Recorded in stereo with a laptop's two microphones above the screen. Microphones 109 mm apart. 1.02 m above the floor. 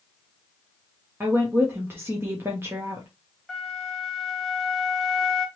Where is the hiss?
No hiss in this recording.